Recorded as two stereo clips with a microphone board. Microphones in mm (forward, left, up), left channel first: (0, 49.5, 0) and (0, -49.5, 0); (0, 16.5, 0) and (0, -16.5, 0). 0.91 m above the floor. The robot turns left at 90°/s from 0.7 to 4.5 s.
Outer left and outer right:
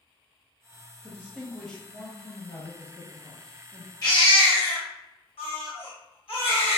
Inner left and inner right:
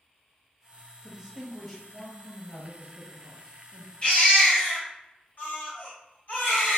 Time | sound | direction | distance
1.0 | a man speaking | 130° right | 0.8 m
4.0 | a baby crying | 140° left | 1.1 m